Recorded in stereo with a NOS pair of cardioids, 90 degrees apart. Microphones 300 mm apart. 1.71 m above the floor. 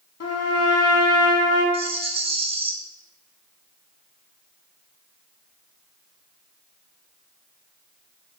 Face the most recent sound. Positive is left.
turn(degrees=-20)